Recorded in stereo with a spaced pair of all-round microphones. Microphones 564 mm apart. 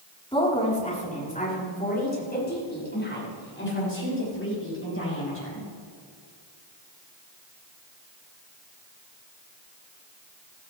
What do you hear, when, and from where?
0.3 s a woman speaking: 10° left (ahead or behind), 4 m; by 5.7 s 25° left (ahead or behind), 8.5 m